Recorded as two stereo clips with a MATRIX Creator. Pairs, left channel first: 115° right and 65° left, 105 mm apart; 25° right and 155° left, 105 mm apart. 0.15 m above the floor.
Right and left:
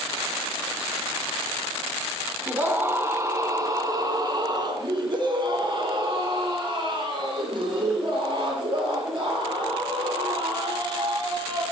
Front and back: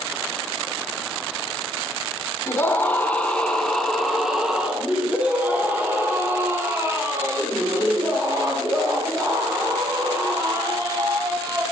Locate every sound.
2.5 s a scream: 15° left, 1.6 m; by 11.6 s 105° left, 5 m